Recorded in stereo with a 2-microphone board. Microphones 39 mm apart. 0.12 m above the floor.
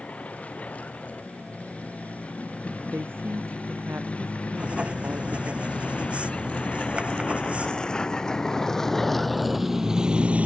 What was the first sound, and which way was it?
A vehicle, 40° left (ahead or behind).